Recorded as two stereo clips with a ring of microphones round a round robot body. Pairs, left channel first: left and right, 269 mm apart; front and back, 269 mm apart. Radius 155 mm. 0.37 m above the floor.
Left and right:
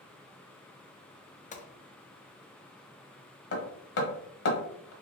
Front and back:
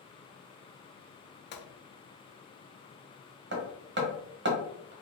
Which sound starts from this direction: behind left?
Hammering, at 3.5 s.